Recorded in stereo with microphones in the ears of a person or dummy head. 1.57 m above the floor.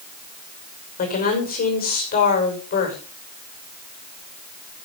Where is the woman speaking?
45° left (ahead or behind), 5.5 m.